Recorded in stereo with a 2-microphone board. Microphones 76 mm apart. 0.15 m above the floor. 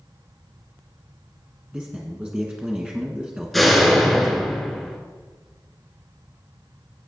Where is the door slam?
Centre (ahead or behind), 1.7 m.